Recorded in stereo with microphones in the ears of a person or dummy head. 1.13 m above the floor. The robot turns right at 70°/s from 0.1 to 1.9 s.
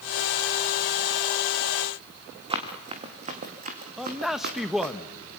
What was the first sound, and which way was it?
Running footsteps, 30° right (ahead or behind).